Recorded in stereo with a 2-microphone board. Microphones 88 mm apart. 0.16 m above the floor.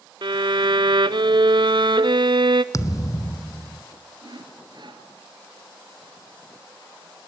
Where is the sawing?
60° right (ahead or behind), 2 m.